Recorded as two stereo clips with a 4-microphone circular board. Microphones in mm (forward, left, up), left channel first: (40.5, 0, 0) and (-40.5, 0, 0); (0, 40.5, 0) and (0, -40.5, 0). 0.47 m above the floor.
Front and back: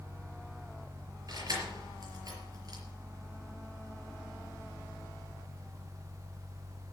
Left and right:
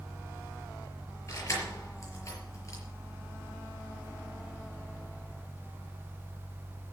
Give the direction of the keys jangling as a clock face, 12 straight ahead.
7 o'clock.